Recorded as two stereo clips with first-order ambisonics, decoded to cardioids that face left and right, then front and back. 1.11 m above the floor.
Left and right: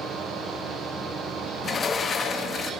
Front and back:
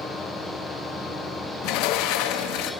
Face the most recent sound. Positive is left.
turn(degrees=20)